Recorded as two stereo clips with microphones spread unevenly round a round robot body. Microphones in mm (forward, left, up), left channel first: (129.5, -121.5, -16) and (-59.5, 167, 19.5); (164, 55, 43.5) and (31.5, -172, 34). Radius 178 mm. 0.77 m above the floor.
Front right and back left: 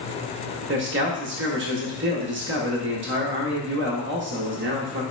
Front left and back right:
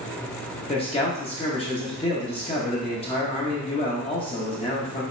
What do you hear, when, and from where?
0.7 s a man speaking: 105° left, 0.8 m